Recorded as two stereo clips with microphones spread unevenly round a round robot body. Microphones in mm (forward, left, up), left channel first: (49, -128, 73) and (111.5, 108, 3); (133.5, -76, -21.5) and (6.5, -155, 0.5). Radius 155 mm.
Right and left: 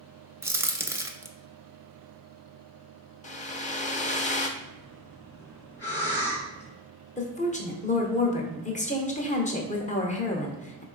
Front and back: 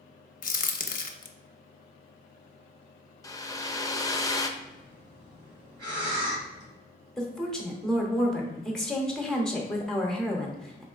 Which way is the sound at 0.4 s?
5° right.